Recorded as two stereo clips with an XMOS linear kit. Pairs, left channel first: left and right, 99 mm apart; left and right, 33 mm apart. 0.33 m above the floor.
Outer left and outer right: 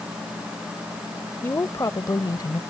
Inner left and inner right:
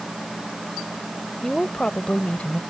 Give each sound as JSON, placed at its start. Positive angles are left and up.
{"t": 1.4, "sound": "a woman speaking", "side_deg": 25}